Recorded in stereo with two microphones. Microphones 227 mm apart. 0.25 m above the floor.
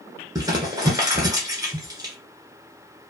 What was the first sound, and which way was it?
Crumpling, 15° right (ahead or behind).